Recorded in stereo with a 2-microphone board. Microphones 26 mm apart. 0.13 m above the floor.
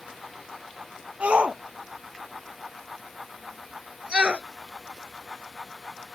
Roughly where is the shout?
Right.